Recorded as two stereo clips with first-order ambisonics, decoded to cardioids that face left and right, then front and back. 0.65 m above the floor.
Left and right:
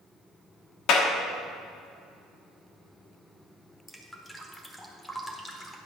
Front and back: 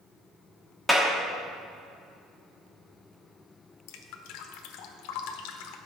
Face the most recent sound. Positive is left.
turn(degrees=5)